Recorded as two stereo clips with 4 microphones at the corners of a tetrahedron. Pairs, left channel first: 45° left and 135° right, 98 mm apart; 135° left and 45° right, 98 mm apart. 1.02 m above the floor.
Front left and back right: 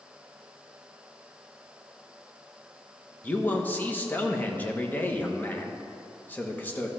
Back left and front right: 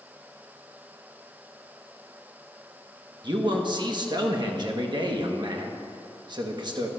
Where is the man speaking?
25° right, 1.2 m.